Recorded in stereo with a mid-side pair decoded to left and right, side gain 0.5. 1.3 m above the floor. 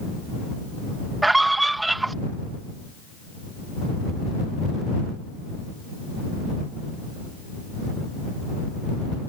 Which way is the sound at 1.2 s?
10° right.